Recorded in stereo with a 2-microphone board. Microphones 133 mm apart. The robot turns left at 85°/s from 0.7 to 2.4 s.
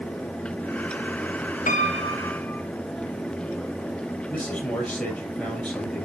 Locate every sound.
1.7 s a piano: 75° left, 0.7 m; by 2.7 s 10° left, 0.7 m
4.3 s a man speaking: 10° left (ahead or behind), 6 m